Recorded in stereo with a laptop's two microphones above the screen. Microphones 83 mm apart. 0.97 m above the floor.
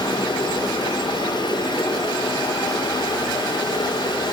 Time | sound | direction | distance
0.0 | running water | 65° left (ahead or behind) | 2.5 m